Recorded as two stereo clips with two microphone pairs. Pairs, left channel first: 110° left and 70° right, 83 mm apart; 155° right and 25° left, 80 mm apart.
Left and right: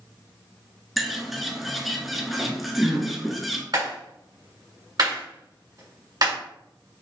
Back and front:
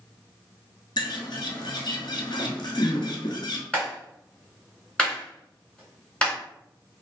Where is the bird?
160° right, 0.8 m.